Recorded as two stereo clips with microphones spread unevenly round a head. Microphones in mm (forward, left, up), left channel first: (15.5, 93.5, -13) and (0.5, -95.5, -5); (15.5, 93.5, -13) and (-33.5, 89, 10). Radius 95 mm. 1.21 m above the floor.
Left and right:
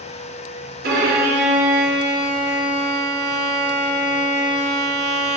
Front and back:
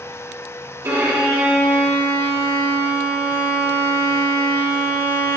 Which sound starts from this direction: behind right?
A violin, at 0.8 s.